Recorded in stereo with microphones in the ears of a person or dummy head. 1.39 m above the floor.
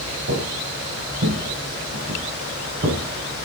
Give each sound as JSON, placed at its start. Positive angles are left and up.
{"t": 0.3, "sound": "footsteps", "side_deg": -70, "distance_m": 4.0}